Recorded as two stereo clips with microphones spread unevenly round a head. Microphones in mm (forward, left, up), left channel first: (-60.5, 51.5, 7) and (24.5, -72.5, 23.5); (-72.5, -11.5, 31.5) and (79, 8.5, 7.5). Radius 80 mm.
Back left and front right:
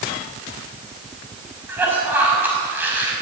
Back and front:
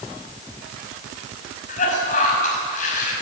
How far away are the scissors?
I don't hear scissors.